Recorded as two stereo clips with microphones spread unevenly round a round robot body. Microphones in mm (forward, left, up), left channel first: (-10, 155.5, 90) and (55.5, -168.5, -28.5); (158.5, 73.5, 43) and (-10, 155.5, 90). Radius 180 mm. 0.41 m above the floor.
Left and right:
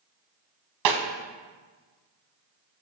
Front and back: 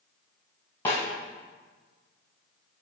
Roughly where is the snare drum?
Right.